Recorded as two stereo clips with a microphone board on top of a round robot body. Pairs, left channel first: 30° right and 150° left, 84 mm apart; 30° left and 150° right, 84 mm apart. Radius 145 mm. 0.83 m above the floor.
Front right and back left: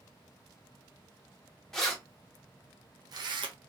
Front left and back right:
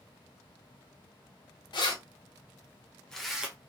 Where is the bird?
I don't hear a bird.